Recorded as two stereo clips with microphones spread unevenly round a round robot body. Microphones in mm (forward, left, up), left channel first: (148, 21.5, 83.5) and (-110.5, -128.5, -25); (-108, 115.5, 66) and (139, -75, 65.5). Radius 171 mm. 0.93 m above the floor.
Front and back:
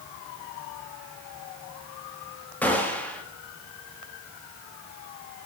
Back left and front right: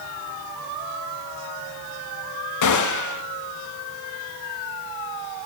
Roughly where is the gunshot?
Behind left.